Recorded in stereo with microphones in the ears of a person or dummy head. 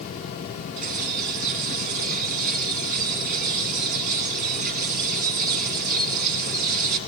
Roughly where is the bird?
Right.